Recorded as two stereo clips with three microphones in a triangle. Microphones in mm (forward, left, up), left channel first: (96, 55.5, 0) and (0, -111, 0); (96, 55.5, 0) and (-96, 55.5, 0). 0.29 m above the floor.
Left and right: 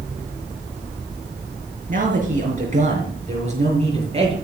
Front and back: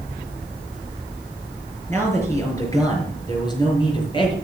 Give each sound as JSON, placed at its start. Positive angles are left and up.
{"t": 1.9, "sound": "a man speaking", "azimuth_deg": -75, "distance_m": 5.0}